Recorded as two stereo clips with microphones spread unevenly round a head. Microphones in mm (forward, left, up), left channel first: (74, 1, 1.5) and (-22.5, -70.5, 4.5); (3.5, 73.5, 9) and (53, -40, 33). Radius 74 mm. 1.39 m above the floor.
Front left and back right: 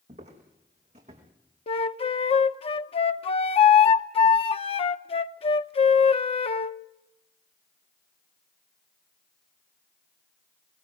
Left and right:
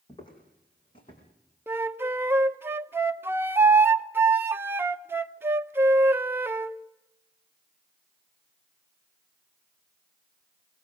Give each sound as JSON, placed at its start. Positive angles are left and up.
{"t": 0.1, "sound": "footsteps", "azimuth_deg": 175, "distance_m": 4.5}
{"t": 1.7, "sound": "a flute", "azimuth_deg": 0, "distance_m": 0.8}